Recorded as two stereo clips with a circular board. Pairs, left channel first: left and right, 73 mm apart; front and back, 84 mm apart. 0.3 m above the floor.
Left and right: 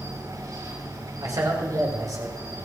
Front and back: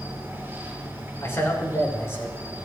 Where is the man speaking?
60° right, 5 m.